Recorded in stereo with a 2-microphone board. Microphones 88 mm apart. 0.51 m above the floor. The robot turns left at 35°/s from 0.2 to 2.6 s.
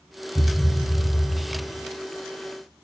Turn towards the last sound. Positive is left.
turn(degrees=105)